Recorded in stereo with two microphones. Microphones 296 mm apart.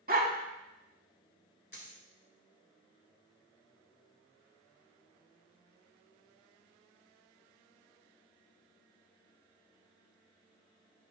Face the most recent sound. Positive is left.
turn(degrees=35)  # may be behind; listen again after turning